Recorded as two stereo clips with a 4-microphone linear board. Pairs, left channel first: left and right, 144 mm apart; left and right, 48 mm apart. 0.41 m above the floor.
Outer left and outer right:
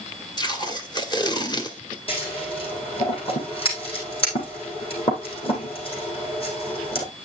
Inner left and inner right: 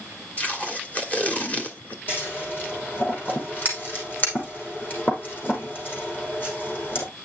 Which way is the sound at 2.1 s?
40° left (ahead or behind).